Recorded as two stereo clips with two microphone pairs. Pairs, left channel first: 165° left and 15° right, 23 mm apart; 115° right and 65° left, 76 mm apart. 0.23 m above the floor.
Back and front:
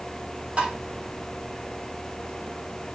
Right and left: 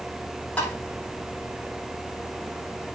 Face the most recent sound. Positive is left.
turn(degrees=-40)